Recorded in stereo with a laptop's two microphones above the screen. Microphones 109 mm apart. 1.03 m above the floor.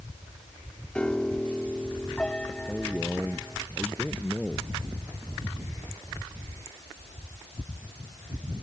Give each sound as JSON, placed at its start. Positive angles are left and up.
{"t": 0.9, "sound": "a piano", "side_deg": 10}
{"t": 2.7, "sound": "a man speaking", "side_deg": 5}